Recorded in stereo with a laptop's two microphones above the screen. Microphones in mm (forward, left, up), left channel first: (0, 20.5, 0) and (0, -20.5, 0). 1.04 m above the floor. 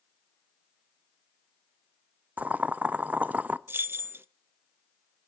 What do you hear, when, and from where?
2.4 s boiling: 35° right (ahead or behind), 0.5 m
3.7 s keys jangling: 60° right (ahead or behind), 0.5 m